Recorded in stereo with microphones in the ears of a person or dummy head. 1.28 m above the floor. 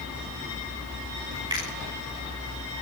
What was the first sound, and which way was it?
A finger snap, 25° right (ahead or behind).